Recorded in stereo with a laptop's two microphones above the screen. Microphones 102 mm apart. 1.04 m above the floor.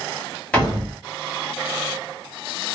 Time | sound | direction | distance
0.5 | a door slam | 10° left (ahead or behind) | 1.3 m